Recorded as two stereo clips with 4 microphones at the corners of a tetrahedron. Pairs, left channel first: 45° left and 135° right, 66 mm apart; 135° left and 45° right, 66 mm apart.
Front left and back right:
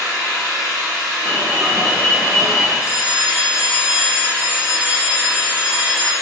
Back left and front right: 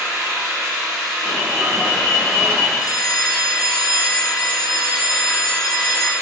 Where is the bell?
150° left, 0.6 m.